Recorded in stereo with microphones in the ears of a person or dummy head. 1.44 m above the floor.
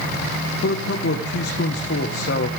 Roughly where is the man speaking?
Left.